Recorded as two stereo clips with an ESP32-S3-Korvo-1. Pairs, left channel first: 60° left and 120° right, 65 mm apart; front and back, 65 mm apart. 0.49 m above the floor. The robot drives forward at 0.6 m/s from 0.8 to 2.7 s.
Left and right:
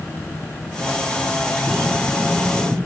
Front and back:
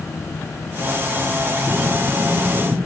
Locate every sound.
1.7 s breathing: 145° left, 1.3 m; by 2.8 s 155° left, 1.9 m